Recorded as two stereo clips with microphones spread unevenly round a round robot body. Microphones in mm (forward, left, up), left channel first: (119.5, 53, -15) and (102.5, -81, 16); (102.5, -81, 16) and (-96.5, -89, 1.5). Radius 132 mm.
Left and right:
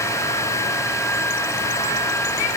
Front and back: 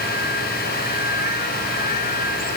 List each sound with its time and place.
Only background noise.